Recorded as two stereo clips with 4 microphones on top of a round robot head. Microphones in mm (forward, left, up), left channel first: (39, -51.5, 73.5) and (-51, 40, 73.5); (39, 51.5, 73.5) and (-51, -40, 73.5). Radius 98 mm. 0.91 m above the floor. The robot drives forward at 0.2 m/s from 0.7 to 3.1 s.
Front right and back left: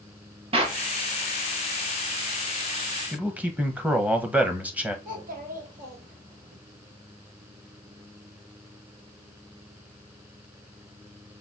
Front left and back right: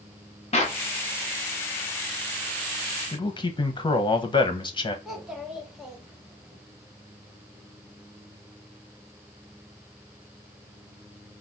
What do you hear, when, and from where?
0.5 s a clap: 85° left, 1.1 m; by 0.8 s 90° left, 1.1 m
3.1 s a man speaking: 65° left, 1.1 m
5.0 s a child speaking: 140° left, 1.7 m